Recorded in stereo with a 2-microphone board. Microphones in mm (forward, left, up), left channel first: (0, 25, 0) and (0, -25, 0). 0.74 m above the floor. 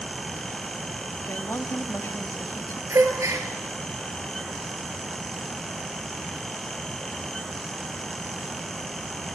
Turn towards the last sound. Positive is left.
turn(degrees=-75)  # may be behind; listen again after turning